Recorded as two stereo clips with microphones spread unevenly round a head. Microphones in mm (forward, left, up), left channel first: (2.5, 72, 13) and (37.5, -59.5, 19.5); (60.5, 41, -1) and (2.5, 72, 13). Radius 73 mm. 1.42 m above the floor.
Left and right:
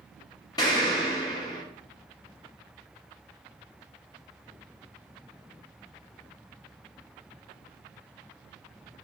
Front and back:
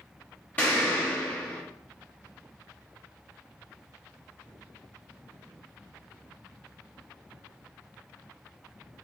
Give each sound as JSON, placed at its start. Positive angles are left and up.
{"t": 0.6, "sound": "an explosion", "azimuth_deg": 45, "distance_m": 1.1}